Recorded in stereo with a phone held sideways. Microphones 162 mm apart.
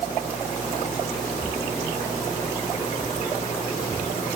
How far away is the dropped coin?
No dropped coin in this recording.